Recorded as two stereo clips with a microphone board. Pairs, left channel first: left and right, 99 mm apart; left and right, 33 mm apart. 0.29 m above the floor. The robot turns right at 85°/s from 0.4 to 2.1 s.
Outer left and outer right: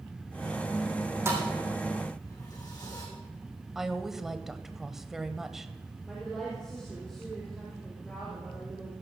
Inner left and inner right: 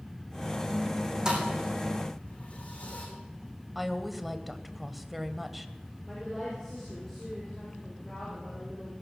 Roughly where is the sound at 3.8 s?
Centre.